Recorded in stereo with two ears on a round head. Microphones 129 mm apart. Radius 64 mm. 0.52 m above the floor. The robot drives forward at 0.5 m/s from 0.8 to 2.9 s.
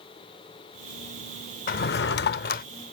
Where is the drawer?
65° left (ahead or behind); by 2.6 s 60° left (ahead or behind).